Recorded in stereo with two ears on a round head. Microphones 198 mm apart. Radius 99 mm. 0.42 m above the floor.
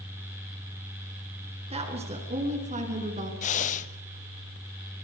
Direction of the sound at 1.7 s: 25° right (ahead or behind).